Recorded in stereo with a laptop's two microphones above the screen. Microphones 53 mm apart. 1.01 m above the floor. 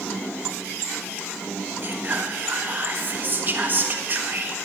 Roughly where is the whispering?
Right.